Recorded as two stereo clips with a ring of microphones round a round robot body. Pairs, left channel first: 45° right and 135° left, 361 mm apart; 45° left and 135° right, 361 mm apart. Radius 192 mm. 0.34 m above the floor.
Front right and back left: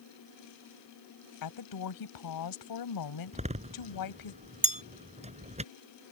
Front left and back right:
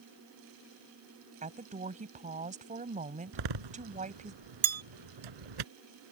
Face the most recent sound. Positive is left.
turn(degrees=-155)